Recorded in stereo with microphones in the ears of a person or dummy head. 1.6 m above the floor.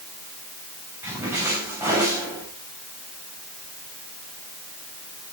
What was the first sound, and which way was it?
A splash, 15° right (ahead or behind).